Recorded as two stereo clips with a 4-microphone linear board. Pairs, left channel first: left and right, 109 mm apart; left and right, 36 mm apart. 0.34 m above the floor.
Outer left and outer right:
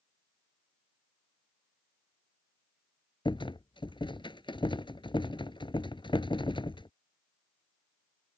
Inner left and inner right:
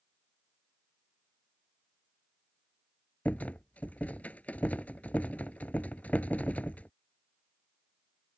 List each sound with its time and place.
3.2 s a rattle: 50° left (ahead or behind)